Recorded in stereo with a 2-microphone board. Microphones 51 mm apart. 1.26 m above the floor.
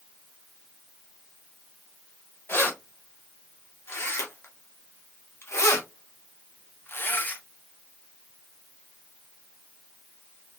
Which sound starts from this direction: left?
Keys jangling, at 2.5 s.